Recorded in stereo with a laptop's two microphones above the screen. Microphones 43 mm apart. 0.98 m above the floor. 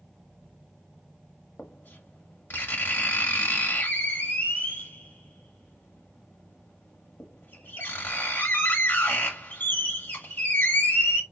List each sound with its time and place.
1.6 s writing: 60° left (ahead or behind), 1.6 m